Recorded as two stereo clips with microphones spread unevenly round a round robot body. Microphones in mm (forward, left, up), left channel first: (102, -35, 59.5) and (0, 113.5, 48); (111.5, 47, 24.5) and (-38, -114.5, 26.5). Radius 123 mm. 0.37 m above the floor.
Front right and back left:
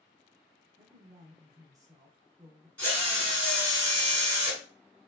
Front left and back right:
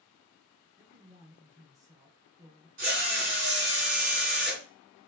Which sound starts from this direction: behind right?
A drill, at 2.8 s.